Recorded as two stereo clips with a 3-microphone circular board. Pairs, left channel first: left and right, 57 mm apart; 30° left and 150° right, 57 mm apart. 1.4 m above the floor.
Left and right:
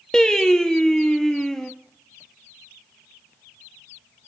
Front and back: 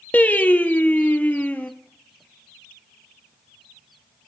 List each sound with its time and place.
0.1 s singing: 20° left, 0.9 m